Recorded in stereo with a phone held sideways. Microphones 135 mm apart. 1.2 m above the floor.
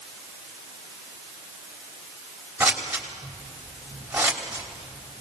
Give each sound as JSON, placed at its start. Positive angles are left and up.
{"t": 2.6, "sound": "scissors", "side_deg": -10, "distance_m": 3.0}